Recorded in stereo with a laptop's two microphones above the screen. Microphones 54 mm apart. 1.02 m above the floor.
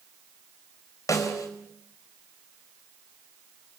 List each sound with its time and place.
1.1 s a snare drum: 80° left, 4.5 m